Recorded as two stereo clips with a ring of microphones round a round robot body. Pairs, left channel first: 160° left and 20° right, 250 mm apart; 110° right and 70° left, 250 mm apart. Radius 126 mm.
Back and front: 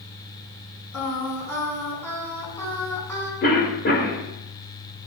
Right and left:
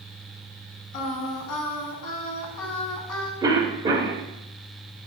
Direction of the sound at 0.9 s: 120° right.